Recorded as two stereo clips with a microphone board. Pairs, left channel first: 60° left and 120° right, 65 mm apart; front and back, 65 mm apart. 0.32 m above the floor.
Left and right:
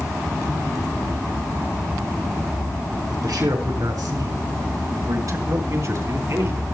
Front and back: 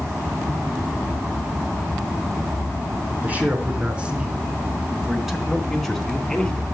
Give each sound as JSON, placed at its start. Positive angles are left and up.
{"t": 3.2, "sound": "a man speaking", "azimuth_deg": -115, "distance_m": 4.5}